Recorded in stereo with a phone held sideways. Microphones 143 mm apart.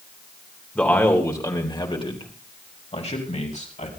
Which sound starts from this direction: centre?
A man speaking, at 0.8 s.